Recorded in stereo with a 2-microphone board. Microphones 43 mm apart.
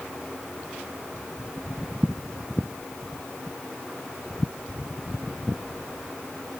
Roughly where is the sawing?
I don't hear sawing.